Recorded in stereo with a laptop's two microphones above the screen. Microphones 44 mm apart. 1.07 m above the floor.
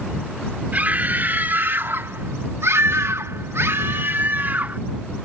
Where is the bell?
No bell in this recording.